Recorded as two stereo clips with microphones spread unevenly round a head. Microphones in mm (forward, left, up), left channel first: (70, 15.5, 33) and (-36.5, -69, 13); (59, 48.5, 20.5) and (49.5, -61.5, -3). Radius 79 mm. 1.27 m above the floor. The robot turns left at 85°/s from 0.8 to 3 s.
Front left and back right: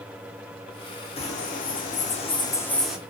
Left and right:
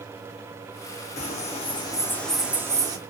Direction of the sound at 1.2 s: 90° left.